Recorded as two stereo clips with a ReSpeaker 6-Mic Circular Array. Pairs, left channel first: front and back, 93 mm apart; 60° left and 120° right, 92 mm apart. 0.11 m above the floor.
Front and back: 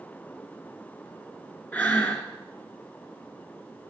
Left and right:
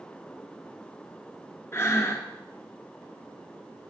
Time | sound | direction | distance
1.7 | breathing | 55° left | 1.3 m